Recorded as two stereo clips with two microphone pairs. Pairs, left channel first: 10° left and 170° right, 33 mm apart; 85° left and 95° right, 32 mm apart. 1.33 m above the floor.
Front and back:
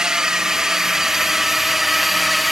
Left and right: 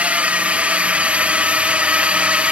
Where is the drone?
110° right; by 2.5 s 85° right.